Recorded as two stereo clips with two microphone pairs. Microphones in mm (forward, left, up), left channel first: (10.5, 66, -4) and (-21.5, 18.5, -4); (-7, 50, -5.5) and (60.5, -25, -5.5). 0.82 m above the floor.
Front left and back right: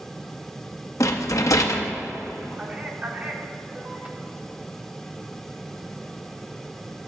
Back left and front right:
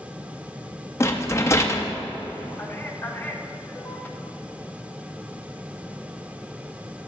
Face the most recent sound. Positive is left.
turn(degrees=-175)